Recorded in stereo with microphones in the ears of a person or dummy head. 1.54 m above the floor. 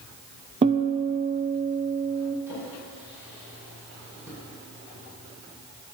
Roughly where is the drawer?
Centre.